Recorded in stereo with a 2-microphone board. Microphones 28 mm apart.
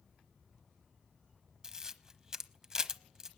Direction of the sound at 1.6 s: 20° right (ahead or behind).